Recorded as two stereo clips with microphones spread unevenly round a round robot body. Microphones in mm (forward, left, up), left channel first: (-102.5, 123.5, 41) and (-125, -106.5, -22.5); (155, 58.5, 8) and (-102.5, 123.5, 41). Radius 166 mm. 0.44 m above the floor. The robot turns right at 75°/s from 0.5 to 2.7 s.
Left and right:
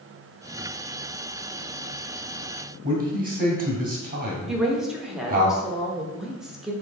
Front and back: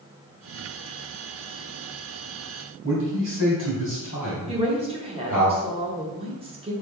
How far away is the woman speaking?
About 0.8 m.